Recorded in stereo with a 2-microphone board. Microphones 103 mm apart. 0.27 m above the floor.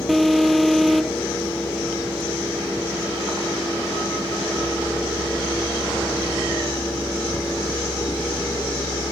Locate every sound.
0.1 s an alarm: centre (ahead or behind)